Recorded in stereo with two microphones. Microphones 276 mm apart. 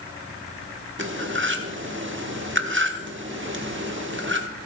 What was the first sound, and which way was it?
Cutlery clinking, 45° right (ahead or behind).